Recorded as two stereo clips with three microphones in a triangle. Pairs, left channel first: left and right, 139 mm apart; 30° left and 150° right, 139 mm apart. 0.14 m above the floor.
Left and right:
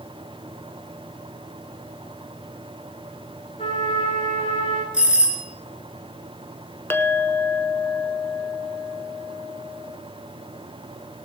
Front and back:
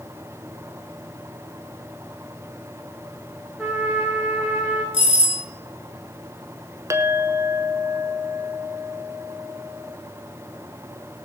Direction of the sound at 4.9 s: 170° right.